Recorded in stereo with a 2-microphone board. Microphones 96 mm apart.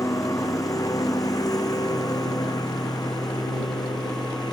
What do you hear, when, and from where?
0.0 s a lawn mower: 40° left (ahead or behind); by 4.5 s 45° left (ahead or behind)